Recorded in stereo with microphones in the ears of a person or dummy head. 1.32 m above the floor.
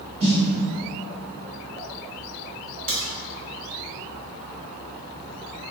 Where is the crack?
40° right (ahead or behind), 1.1 m.